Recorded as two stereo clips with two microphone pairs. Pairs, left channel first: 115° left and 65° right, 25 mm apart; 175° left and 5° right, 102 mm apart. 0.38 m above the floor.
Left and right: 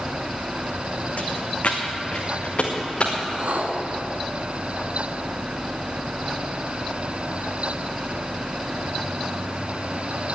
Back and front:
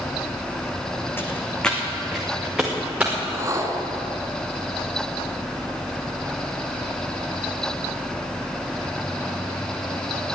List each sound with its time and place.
1.2 s footsteps: 105° left, 1.6 m; by 3.1 s 75° left, 4 m
3.2 s a whoosh: 60° right, 1.3 m